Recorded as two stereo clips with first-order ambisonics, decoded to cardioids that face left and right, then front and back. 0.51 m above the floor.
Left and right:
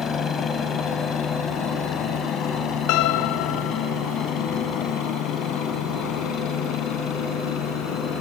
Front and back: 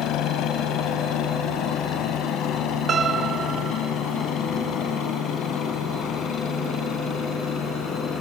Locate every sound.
0.0 s a helicopter: 35° left; by 8.2 s 55° left
2.9 s a piano: 115° left